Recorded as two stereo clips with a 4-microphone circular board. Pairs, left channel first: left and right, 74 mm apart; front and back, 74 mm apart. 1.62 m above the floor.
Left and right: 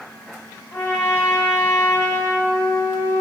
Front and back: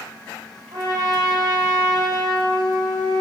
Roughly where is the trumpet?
Behind left.